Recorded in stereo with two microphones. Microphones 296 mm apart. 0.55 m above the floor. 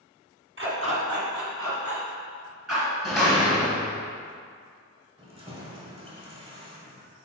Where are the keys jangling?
20° right (ahead or behind), 1.4 m.